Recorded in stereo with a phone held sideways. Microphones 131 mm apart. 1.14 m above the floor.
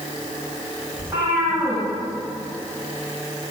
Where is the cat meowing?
20° right (ahead or behind), 3.5 m.